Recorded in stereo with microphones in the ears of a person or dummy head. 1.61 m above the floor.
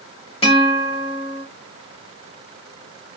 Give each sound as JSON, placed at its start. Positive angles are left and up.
{"t": 0.4, "sound": "a guitar", "side_deg": 25, "distance_m": 2.5}